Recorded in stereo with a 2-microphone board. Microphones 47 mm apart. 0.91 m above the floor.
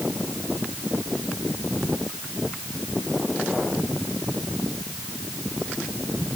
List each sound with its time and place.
Only background noise.